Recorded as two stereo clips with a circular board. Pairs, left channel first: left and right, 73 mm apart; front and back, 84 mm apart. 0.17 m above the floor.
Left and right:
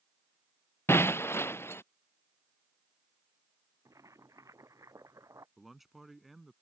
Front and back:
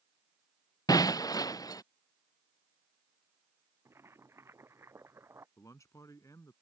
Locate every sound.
0.9 s breaking glass: 40° left
3.9 s boiling: 125° right
5.6 s a man speaking: straight ahead